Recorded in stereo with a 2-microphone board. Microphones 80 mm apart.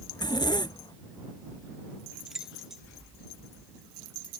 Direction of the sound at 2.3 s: 5° right (ahead or behind).